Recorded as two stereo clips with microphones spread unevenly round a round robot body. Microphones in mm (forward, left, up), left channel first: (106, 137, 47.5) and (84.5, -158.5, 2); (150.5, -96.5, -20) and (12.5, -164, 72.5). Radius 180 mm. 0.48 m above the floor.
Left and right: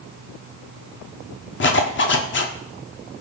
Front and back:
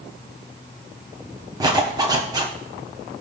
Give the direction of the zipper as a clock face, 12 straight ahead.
9 o'clock.